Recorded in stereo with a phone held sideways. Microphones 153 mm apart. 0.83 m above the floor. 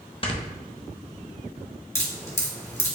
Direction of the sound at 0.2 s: 35° left (ahead or behind).